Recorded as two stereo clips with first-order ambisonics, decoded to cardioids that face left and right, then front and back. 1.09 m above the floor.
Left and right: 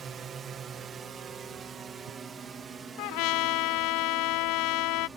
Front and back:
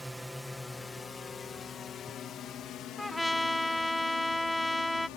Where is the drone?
95° right; by 5.2 s 15° right.